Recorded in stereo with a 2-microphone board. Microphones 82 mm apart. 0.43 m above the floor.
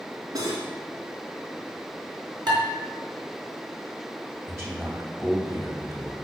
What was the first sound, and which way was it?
Cutlery clinking, 45° right (ahead or behind).